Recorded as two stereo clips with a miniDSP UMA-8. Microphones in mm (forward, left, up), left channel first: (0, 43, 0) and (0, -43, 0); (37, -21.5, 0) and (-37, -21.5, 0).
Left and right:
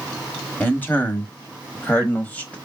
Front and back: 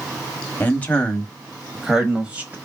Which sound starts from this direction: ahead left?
A man speaking, at 0.6 s.